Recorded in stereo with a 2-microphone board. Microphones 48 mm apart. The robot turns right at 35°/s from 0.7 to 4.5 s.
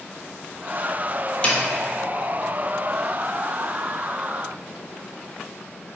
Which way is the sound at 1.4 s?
30° left (ahead or behind).